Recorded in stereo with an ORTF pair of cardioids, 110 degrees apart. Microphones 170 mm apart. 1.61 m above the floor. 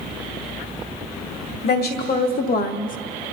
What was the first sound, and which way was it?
A woman speaking, 65° left.